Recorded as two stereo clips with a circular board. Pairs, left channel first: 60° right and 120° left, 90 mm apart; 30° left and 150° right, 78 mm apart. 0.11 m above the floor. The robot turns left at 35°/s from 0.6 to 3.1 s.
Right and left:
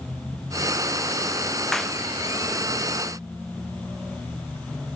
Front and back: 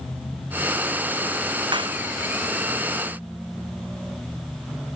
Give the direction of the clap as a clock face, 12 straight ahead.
5 o'clock.